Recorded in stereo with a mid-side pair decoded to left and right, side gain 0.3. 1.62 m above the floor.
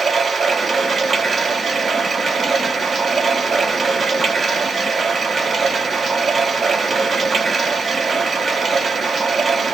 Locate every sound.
0.0 s running water: 60° right, 1.3 m